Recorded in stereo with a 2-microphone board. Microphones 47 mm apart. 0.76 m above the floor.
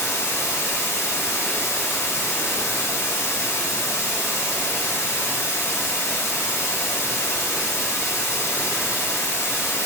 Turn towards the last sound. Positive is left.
turn(degrees=80)